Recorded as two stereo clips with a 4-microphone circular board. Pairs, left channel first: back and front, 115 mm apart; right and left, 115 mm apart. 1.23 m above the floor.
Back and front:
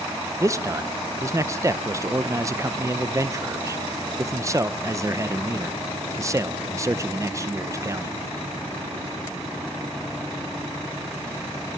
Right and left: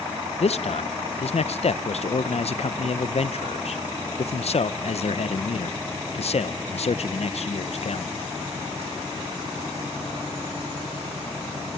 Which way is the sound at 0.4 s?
65° right.